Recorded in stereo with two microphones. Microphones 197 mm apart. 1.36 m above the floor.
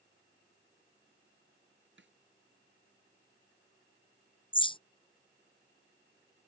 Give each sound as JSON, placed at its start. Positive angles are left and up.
{"t": 2.0, "sound": "a snare drum", "side_deg": -70}
{"t": 4.5, "sound": "a bird", "side_deg": 25}